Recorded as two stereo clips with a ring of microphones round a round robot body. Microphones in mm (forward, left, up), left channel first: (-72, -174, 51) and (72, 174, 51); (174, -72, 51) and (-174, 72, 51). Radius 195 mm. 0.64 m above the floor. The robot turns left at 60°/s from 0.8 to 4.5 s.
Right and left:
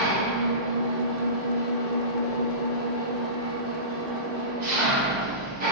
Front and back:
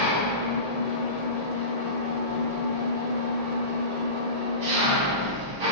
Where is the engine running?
5° right, 1.5 m; by 5.7 s 135° left, 1.5 m.